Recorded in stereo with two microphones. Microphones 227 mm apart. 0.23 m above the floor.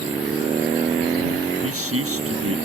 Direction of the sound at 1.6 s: 70° right (ahead or behind).